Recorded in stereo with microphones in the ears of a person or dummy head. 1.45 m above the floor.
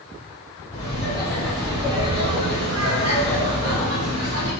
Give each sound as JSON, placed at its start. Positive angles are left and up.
{"t": 0.7, "sound": "laughter", "side_deg": 25, "distance_m": 1.3}